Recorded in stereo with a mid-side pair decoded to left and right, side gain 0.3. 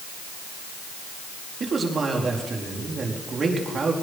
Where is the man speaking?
60° right, 4.5 m.